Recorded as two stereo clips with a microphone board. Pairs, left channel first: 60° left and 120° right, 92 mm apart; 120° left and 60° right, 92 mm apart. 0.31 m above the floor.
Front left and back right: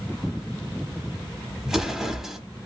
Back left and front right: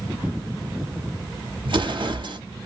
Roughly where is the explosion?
Ahead right.